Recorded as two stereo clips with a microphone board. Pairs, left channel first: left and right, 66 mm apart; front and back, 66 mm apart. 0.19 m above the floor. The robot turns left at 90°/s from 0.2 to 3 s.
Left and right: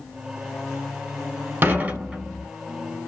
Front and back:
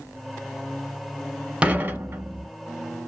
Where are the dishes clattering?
120° right, 0.9 m; by 2.5 s 165° left, 0.9 m.